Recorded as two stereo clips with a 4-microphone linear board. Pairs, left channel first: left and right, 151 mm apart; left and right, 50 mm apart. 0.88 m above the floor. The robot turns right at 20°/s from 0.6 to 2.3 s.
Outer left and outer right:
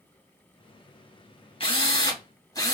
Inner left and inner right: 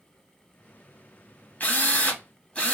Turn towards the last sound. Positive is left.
turn(degrees=25)  # may be behind; listen again after turning